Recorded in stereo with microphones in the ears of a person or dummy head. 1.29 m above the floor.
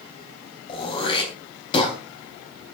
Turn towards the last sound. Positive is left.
turn(degrees=35)  # may be behind; listen again after turning